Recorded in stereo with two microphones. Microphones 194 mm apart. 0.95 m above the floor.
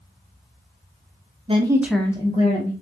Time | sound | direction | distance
1.5 | a woman speaking | 30° right (ahead or behind) | 0.7 m